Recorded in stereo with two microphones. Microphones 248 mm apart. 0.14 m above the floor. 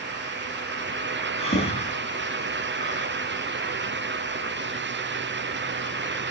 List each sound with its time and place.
1.4 s breathing: 25° left (ahead or behind), 2 m